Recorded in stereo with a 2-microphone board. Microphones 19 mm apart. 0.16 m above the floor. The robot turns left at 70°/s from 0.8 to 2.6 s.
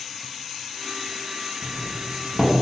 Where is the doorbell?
20° left (ahead or behind), 1.4 m; by 2.5 s 10° left (ahead or behind), 1.4 m.